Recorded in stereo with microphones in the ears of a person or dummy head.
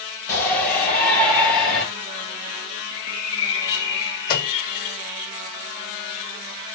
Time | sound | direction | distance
0.3 | a shout | 10° left (ahead or behind) | 5.5 m
2.9 | a bird | 25° left (ahead or behind) | 3 m
4.3 | a microwave | 50° left (ahead or behind) | 1.2 m